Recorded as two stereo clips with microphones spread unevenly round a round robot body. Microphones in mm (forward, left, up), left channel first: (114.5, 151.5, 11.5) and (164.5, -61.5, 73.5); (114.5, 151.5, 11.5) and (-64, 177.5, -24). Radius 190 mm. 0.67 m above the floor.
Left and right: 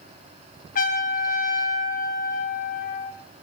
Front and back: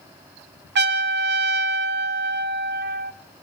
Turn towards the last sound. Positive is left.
turn(degrees=165)